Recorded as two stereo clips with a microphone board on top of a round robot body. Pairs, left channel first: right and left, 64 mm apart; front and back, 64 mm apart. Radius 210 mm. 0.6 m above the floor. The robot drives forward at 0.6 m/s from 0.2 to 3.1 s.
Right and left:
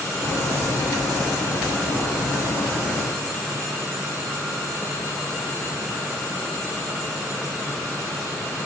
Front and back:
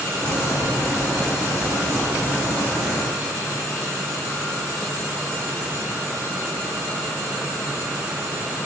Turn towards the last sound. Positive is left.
No sound to turn to.